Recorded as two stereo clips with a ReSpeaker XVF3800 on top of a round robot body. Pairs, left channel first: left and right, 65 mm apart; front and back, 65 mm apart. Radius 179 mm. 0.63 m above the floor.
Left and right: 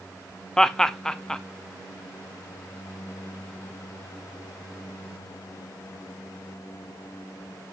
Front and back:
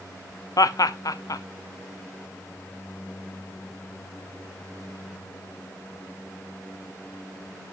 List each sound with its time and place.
0.6 s laughter: 10° left, 0.9 m